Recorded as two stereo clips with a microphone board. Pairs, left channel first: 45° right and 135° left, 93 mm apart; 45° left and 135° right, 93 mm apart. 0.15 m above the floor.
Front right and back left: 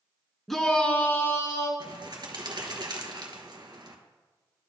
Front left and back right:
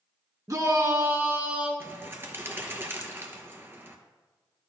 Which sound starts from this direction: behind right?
A shout, at 0.5 s.